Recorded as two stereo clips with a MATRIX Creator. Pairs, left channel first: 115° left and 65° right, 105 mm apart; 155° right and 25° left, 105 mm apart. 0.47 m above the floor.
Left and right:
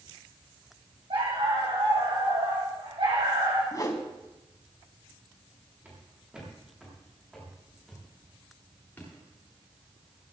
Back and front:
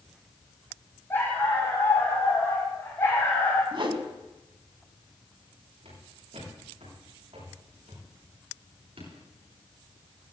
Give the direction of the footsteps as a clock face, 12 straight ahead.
12 o'clock.